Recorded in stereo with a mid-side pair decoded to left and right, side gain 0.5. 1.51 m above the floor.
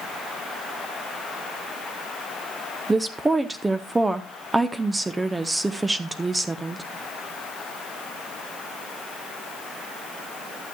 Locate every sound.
2.9 s a woman speaking: 15° right, 0.9 m